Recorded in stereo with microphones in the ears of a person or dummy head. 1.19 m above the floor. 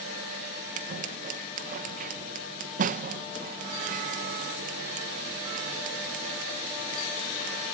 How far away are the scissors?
About 1.3 m.